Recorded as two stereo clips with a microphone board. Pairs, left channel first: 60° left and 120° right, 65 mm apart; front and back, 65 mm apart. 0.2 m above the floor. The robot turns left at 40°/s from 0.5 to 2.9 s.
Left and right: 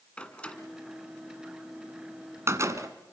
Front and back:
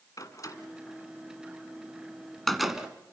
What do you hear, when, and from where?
0.2 s a door slam: 10° right, 1.6 m; by 2.9 s 105° right, 1.6 m